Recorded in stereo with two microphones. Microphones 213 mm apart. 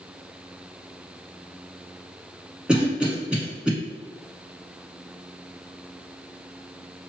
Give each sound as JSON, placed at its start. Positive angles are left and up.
{"t": 2.7, "sound": "a cough", "side_deg": -5, "distance_m": 1.3}